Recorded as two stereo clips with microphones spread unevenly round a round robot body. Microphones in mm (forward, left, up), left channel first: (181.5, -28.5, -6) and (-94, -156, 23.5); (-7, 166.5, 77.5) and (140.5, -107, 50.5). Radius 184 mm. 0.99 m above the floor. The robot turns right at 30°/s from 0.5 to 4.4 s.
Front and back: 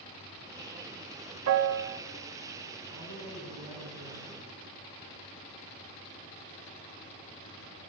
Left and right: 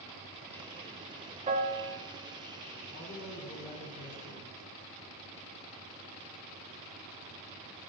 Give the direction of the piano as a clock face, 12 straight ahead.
4 o'clock.